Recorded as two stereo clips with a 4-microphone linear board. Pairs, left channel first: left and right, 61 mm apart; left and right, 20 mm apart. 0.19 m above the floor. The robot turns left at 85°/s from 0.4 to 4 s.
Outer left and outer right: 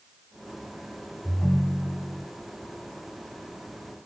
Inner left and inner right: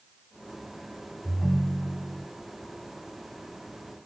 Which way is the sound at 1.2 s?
10° left (ahead or behind).